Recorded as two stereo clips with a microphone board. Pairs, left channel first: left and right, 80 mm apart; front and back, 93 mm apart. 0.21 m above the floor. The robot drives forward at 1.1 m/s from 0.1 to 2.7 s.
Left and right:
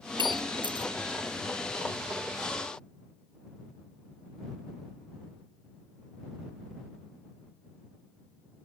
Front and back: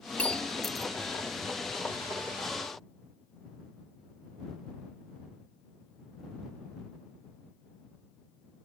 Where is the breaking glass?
75° right; by 0.9 s 90° right.